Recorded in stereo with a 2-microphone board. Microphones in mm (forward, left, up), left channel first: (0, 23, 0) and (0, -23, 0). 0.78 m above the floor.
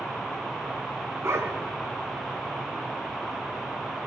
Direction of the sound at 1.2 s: 75° right (ahead or behind).